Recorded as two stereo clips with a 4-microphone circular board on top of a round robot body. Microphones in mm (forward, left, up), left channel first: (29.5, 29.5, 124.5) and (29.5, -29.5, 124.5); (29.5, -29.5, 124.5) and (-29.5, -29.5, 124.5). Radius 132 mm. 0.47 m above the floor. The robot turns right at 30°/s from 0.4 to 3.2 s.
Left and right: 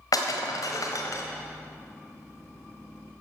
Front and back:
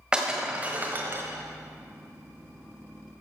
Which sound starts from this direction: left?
Breaking glass, at 0.1 s.